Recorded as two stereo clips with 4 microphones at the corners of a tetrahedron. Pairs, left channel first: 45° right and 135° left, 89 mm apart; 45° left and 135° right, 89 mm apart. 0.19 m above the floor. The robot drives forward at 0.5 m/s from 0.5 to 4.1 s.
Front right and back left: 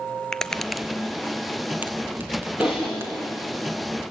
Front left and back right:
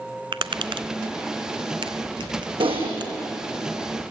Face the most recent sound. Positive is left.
turn(degrees=-150)